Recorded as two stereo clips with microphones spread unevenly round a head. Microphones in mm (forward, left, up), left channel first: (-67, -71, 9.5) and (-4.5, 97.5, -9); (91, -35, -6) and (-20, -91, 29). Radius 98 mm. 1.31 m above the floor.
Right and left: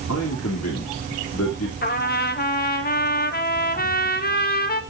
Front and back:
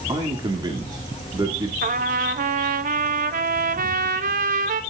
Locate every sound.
0.1 s a man speaking: 95° right, 2.5 m
1.8 s a trumpet: 145° right, 1.3 m